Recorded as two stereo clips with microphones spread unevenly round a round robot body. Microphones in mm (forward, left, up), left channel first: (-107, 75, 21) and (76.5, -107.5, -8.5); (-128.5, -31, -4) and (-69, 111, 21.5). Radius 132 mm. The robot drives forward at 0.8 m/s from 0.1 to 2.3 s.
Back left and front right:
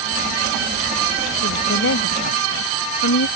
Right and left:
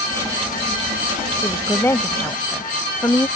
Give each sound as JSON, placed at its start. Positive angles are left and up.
{"t": 1.4, "sound": "a woman speaking", "azimuth_deg": 170}